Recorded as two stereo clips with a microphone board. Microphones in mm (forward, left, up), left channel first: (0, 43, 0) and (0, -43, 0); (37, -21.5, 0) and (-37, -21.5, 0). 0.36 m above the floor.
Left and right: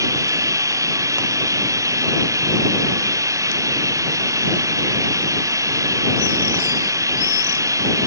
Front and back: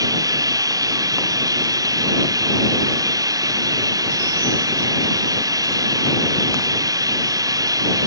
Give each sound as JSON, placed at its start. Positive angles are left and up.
{"t": 0.0, "sound": "running water", "azimuth_deg": -145}